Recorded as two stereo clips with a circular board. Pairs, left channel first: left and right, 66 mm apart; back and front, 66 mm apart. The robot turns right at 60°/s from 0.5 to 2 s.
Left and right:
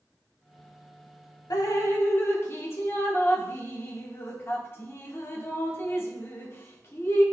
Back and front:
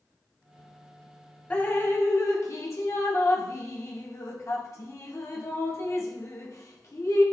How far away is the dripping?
About 1.0 m.